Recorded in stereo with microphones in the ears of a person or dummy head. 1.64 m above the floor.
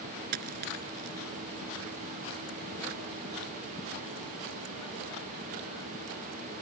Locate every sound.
0.3 s a dropped coin: 50° right (ahead or behind)